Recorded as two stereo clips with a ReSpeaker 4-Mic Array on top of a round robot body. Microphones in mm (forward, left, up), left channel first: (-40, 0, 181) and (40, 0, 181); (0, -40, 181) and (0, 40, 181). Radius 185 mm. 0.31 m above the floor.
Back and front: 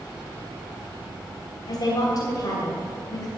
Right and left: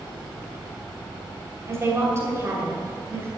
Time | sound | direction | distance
1.7 | a woman speaking | 145° left | 3 m